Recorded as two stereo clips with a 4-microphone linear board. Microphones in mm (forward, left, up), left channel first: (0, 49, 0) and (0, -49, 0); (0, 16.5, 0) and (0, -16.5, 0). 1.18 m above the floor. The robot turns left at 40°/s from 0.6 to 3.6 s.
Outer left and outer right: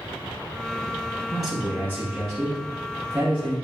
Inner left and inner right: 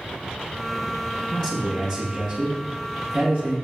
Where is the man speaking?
35° left, 1.3 m; by 3.5 s 55° right, 1.3 m.